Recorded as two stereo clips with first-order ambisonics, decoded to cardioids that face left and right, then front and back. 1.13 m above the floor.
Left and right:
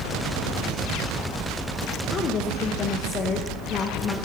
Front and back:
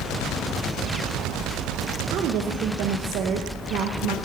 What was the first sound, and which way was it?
A woman speaking, 145° left.